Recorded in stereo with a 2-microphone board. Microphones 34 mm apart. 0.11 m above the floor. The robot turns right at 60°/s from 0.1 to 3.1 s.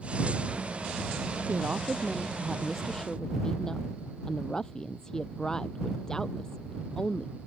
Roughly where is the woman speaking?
Right.